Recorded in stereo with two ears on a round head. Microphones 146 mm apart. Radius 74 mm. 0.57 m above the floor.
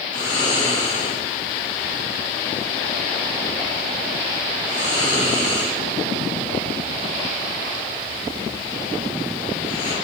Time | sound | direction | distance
0.1 | snoring | 30° left (ahead or behind) | 3 m